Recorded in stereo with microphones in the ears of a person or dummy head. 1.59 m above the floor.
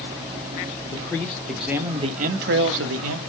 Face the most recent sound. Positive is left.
turn(degrees=-85)